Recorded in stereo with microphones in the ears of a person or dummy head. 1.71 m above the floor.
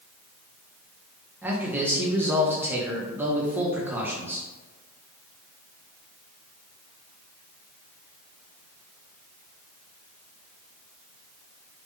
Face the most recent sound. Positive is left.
turn(degrees=-10)  # may be behind; listen again after turning